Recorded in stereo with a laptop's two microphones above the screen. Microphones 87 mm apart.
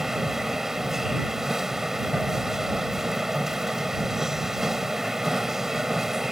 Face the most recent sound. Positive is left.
turn(degrees=-5)  # may be behind; listen again after turning